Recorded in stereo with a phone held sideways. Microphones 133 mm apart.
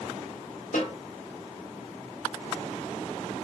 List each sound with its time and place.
0.7 s a snare drum: 75° left (ahead or behind), 1.7 m